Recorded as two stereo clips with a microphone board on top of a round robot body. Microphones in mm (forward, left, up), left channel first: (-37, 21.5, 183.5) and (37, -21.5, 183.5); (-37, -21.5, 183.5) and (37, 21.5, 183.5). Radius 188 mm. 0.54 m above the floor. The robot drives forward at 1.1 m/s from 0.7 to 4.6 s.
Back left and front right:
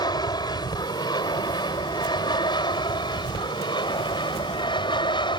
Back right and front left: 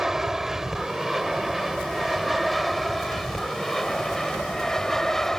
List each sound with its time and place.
0.0 s an aircraft: 115° left; by 5.4 s 125° left